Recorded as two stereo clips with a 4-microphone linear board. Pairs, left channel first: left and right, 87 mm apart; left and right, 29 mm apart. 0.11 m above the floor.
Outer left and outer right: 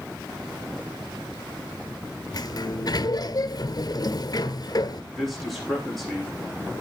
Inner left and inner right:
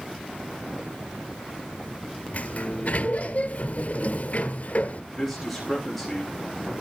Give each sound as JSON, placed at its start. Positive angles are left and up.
{"t": 2.3, "sound": "a sliding door", "side_deg": 50, "distance_m": 0.9}
{"t": 5.1, "sound": "a man speaking", "side_deg": 0, "distance_m": 6.0}